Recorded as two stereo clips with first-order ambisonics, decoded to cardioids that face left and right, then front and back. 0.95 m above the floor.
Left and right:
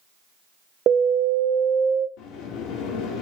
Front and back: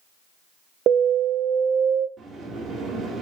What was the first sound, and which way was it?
An alarm, 135° right.